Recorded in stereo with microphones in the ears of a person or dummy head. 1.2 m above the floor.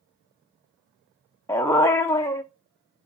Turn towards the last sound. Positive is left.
turn(degrees=10)  # may be behind; listen again after turning